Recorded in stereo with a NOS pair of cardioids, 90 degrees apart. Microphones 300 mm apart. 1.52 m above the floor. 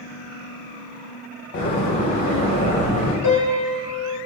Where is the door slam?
65° left, 1.2 m.